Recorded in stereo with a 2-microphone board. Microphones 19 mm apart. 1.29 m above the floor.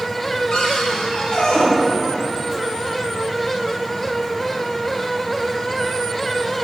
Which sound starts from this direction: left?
A cupboard door, at 0.5 s.